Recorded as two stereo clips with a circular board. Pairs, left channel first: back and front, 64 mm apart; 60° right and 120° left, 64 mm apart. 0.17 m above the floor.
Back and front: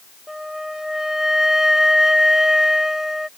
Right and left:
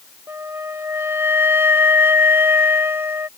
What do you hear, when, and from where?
0.3 s a flute: 85° left